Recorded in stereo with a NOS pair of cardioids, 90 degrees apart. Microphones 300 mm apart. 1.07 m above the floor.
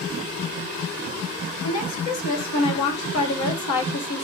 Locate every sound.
1.6 s a woman speaking: 65° left, 1.6 m